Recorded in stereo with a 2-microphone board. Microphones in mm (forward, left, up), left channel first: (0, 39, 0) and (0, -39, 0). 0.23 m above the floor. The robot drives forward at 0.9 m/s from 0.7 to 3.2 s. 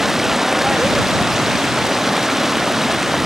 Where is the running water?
5° right (ahead or behind).